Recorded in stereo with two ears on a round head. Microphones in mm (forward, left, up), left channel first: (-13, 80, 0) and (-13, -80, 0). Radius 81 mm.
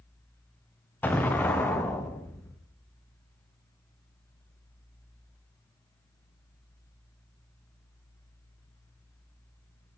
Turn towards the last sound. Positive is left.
turn(degrees=10)  # may be behind; listen again after turning